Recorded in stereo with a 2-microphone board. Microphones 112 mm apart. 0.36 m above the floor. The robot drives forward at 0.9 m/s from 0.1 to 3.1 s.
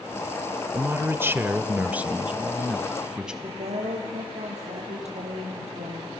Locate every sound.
0.7 s a man speaking: 20° right (ahead or behind), 0.8 m; by 3.3 s 10° right (ahead or behind), 2 m
3.4 s a woman speaking: 75° right (ahead or behind), 9 m